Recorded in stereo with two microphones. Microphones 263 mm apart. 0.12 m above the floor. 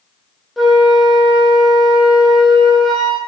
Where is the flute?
Centre (ahead or behind), 2 m.